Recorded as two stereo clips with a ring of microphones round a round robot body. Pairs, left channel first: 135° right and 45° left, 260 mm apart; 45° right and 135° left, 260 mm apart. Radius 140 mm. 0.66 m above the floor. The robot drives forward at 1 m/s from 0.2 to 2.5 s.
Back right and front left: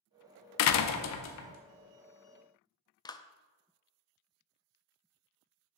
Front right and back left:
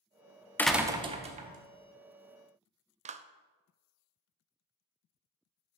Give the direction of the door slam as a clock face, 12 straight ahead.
4 o'clock.